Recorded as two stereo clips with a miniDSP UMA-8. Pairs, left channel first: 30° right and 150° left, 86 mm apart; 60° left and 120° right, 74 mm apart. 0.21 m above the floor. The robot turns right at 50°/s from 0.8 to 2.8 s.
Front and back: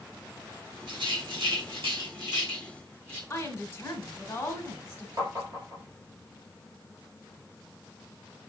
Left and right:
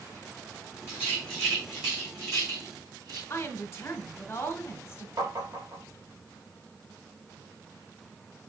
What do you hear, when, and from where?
0.9 s a rattle: 115° left, 4.5 m; by 3.2 s 145° right, 4.5 m
3.3 s a woman speaking: 25° left, 2 m
5.2 s tapping: 165° right, 3.5 m